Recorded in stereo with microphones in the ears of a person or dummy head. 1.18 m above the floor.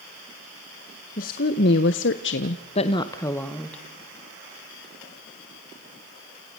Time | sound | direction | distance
1.2 | a woman speaking | 45° left (ahead or behind) | 1.6 m